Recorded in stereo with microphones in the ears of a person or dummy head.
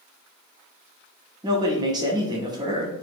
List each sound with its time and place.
1.4 s a man speaking: 20° right (ahead or behind), 0.7 m